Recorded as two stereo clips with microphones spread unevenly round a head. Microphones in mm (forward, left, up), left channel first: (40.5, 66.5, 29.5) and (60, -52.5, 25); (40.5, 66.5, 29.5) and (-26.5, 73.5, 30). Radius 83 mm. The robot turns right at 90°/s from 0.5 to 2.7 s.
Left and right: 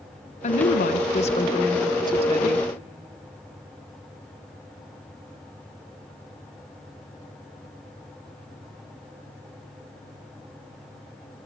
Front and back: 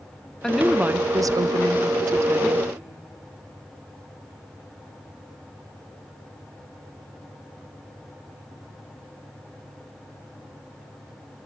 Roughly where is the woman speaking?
Left.